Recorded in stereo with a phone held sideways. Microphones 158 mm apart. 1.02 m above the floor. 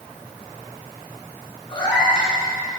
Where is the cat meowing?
30° left (ahead or behind), 3 m.